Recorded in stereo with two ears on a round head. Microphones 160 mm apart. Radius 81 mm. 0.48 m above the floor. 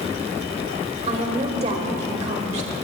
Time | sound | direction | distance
1.1 | a woman speaking | 40° right (ahead or behind) | 1.9 m